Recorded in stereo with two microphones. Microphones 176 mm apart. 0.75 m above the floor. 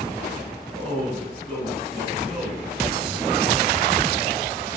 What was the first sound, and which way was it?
A man speaking, 5° left (ahead or behind).